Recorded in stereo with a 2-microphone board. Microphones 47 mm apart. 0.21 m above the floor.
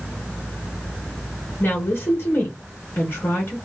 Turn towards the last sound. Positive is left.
turn(degrees=50)  # may be behind; listen again after turning